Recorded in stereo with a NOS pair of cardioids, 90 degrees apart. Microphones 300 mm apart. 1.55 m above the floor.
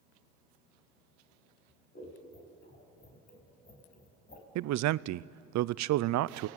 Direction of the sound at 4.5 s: 70° right.